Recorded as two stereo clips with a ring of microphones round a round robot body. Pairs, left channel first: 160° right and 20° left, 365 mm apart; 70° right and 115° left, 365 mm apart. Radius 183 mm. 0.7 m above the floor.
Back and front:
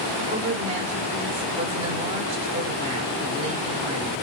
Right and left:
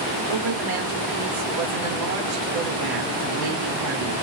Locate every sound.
0.3 s a woman speaking: 95° left, 2.5 m